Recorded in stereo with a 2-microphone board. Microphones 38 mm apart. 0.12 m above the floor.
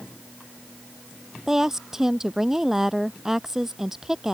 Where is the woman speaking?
10° right (ahead or behind).